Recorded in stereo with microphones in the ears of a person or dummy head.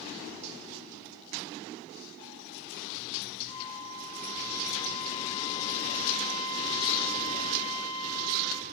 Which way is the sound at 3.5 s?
30° left (ahead or behind).